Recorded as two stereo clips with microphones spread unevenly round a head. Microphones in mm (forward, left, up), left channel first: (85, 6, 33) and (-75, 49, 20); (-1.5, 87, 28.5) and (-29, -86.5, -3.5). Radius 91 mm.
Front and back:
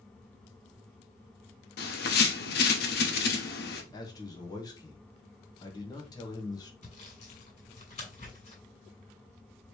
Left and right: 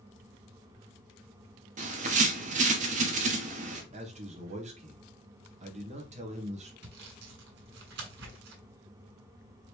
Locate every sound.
1.8 s a bird: 50° right, 0.9 m
3.9 s a man speaking: 80° right, 1.2 m
6.8 s sawing: 70° right, 2.5 m